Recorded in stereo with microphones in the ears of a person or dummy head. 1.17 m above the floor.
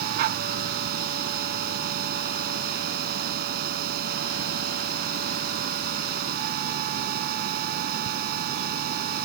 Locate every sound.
0.0 s a machine running: 55° right (ahead or behind)